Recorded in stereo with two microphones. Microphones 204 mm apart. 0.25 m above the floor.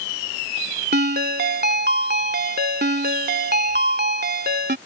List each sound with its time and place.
0.9 s a ringtone: 55° right (ahead or behind)